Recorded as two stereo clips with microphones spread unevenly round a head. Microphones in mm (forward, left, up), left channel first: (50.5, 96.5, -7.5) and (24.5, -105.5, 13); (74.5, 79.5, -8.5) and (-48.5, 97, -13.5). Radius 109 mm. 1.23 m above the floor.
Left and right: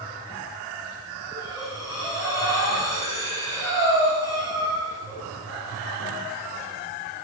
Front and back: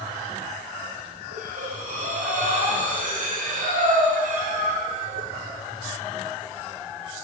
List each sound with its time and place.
1.3 s breathing: 160° left, 4 m